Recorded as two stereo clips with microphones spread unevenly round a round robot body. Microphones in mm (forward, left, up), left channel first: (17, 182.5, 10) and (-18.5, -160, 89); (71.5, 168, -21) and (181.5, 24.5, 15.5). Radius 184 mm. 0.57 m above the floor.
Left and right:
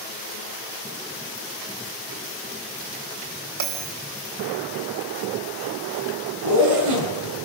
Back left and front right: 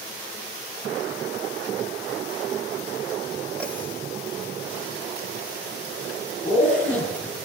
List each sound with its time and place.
3.6 s a bell: 140° right, 3.5 m
6.4 s a zipper: 140° right, 6 m